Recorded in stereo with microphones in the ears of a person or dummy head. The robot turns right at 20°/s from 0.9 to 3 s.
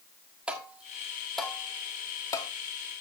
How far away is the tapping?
About 1.5 m.